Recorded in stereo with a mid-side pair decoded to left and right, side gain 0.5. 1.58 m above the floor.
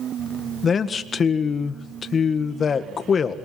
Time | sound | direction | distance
0.6 | a man speaking | 40° left | 1.7 m